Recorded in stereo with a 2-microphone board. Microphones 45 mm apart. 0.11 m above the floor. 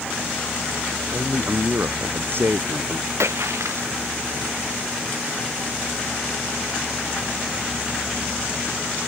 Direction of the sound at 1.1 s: 50° right (ahead or behind).